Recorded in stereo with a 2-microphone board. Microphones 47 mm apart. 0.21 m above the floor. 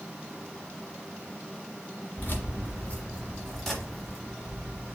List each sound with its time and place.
2.2 s keys jangling: 45° left (ahead or behind), 1.4 m; by 5.0 s 25° right (ahead or behind), 1.5 m